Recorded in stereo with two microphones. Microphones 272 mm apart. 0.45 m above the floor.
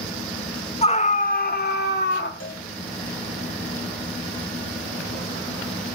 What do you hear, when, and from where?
0.8 s a scream: 25° left (ahead or behind), 0.9 m; by 2.3 s 45° left (ahead or behind), 1.5 m
2.4 s a cowbell: 50° left (ahead or behind), 1.8 m